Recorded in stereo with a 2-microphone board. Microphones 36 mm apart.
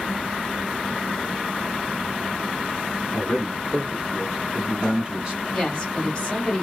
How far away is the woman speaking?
About 1.7 m.